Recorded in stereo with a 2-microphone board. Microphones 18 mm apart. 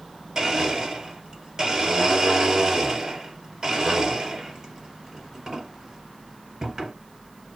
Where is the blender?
35° right (ahead or behind), 2 m.